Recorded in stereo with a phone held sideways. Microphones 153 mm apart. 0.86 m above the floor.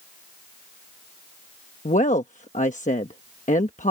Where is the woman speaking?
55° left (ahead or behind).